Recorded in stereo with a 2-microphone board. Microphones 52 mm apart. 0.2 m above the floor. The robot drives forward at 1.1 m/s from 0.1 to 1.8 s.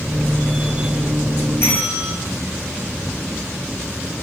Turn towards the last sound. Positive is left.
turn(degrees=60)  # may be behind; listen again after turning